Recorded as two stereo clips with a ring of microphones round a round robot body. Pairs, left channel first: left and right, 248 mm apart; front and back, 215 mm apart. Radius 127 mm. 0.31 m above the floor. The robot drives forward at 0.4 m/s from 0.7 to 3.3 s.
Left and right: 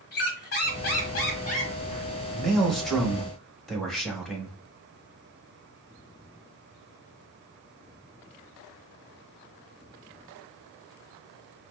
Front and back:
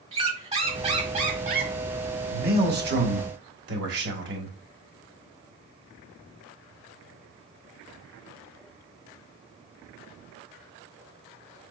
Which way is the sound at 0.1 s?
125° left.